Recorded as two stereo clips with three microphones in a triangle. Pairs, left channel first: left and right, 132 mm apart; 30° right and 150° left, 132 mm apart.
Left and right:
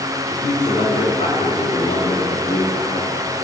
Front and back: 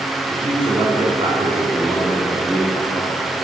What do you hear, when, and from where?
0.3 s a man speaking: 115° left, 3 m; by 3.3 s 35° left, 1.7 m